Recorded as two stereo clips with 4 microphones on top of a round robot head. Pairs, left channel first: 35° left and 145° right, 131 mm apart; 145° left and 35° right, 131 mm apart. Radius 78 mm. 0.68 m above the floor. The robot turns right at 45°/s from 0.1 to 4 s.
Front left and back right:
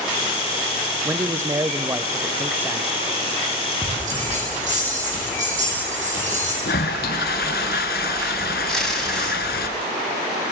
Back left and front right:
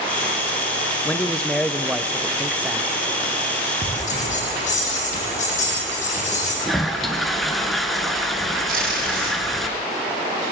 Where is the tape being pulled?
50° right, 5.5 m.